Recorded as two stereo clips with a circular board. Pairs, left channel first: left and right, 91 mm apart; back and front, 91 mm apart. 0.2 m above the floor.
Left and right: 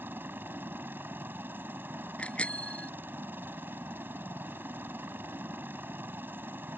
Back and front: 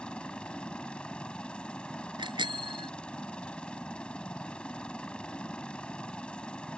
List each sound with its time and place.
0.0 s a helicopter: 115° right
2.2 s a bicycle bell: 15° left